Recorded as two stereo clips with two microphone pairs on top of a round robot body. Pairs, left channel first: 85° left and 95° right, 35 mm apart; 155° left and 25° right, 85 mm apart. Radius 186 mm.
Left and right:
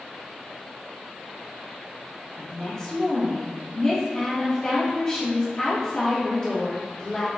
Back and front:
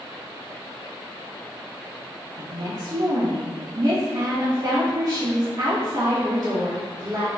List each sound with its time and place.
2.4 s a woman speaking: 10° left, 1.1 m